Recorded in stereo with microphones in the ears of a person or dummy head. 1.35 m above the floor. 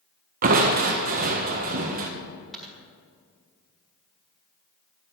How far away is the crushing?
About 1.4 m.